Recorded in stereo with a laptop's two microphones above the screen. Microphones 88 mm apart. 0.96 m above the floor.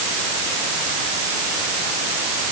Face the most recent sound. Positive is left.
No sound to turn to.